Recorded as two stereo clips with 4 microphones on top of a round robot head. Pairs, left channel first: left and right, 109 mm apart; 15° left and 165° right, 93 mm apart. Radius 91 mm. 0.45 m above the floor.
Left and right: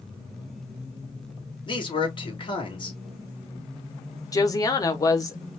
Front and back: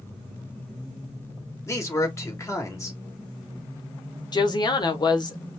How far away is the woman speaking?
About 1.4 m.